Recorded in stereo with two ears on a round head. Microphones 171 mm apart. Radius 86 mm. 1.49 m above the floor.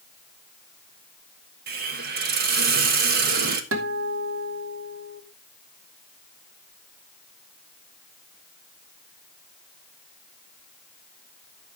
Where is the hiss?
50° right (ahead or behind), 1.4 m.